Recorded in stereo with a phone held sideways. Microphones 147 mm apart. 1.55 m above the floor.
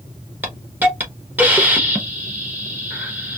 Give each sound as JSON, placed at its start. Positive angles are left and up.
{"t": 0.4, "sound": "a hiss", "side_deg": -10, "distance_m": 0.8}